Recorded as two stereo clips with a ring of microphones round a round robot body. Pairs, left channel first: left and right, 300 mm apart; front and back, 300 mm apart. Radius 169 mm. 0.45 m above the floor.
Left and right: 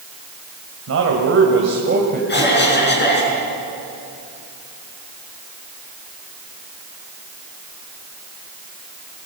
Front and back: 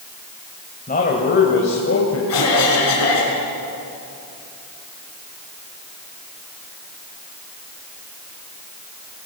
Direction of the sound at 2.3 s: 40° left.